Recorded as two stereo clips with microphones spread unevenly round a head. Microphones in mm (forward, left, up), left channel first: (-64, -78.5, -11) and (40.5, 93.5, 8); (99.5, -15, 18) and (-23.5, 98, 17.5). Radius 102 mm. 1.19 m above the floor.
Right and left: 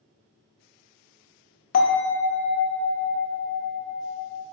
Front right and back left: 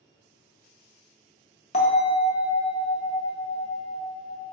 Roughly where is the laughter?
I don't hear laughter.